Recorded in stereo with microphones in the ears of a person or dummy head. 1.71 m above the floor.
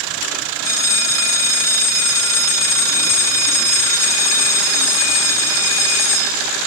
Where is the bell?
15° left (ahead or behind), 0.5 m.